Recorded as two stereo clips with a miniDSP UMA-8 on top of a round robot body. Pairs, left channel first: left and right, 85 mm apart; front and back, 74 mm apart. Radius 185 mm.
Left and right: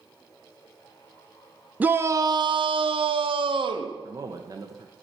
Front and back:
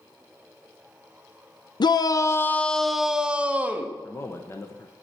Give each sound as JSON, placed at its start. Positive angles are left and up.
{"t": 1.8, "sound": "a shout", "azimuth_deg": -20, "distance_m": 0.6}
{"t": 4.0, "sound": "a man speaking", "azimuth_deg": -50, "distance_m": 1.0}